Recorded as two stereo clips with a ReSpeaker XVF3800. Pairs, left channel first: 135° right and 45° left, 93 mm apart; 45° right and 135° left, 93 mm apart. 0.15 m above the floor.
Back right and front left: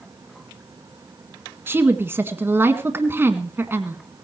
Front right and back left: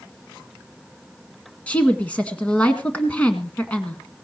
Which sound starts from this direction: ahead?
A woman speaking, at 1.7 s.